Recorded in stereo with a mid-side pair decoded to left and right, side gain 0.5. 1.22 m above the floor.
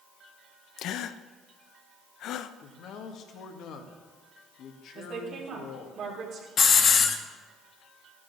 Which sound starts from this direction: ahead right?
A woman speaking, at 5.0 s.